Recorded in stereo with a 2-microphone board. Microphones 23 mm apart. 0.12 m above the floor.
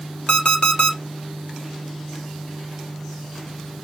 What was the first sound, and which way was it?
An alarm clock, 50° left (ahead or behind).